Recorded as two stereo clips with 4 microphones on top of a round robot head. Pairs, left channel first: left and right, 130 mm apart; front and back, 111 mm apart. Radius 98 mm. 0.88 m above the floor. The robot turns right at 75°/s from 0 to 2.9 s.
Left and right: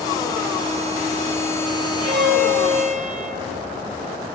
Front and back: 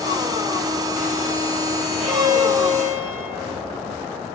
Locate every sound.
2.0 s a violin: 140° right, 3.5 m; by 3.5 s 75° right, 3.5 m